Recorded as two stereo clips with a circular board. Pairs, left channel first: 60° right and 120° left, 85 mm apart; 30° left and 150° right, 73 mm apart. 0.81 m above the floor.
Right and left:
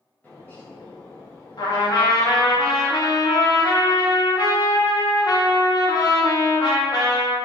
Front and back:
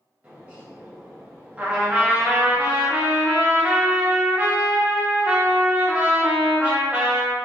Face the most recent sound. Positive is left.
turn(degrees=-80)